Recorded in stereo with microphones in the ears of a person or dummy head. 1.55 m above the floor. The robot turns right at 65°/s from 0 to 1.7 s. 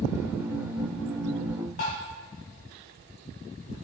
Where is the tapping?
30° left (ahead or behind), 0.6 m.